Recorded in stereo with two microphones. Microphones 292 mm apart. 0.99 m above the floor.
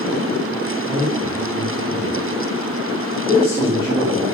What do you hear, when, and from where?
0.9 s a man speaking: 10° right (ahead or behind), 2.5 m